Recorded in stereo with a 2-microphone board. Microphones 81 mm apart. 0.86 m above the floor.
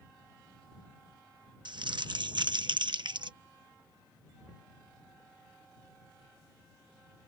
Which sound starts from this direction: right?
Crumpling, at 1.6 s.